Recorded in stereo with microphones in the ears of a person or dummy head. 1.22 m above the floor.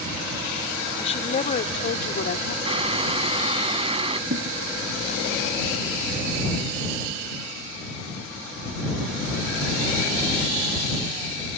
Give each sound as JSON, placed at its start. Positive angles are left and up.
{"t": 1.0, "sound": "a woman speaking", "side_deg": 35}
{"t": 2.6, "sound": "boiling", "side_deg": -35}
{"t": 4.3, "sound": "a thud", "side_deg": -65}